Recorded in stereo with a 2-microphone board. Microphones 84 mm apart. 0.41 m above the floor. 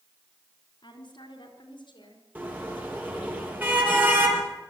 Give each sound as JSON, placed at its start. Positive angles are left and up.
{"t": 0.8, "sound": "a woman speaking", "side_deg": 70, "distance_m": 4.5}
{"t": 2.4, "sound": "a car horn", "side_deg": -20, "distance_m": 5.0}